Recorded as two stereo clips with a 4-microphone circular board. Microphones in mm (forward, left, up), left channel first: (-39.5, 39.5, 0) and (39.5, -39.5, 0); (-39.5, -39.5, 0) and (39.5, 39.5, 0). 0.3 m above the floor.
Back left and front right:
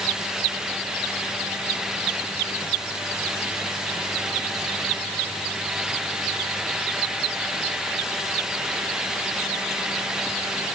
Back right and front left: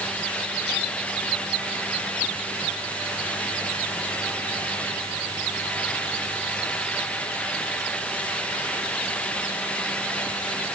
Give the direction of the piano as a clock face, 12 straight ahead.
No piano in this recording.